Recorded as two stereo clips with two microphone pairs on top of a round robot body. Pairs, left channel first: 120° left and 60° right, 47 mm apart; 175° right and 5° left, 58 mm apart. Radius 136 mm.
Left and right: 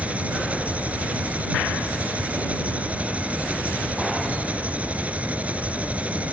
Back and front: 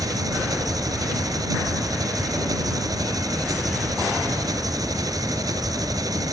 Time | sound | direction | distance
0.0 | an engine running | straight ahead | ?